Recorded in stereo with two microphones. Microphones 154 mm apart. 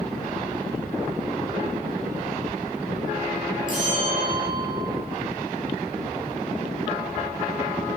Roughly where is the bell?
Left.